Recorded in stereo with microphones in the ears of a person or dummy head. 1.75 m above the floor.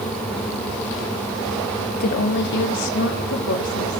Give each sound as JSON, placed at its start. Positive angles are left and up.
{"t": 1.9, "sound": "a woman speaking", "side_deg": 50, "distance_m": 1.0}